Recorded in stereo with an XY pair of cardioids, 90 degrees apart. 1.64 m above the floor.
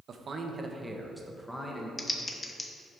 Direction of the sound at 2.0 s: 25° left.